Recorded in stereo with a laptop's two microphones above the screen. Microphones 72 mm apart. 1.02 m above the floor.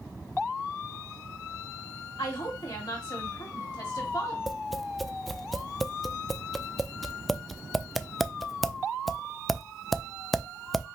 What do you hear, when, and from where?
2.2 s a woman speaking: 75° left (ahead or behind), 2 m
4.5 s tapping: centre (ahead or behind), 0.5 m